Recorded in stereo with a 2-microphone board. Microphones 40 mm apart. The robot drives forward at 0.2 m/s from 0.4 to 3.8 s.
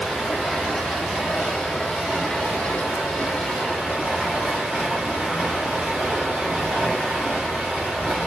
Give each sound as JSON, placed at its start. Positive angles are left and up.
{"t": 0.0, "sound": "running water", "side_deg": 0, "distance_m": 0.7}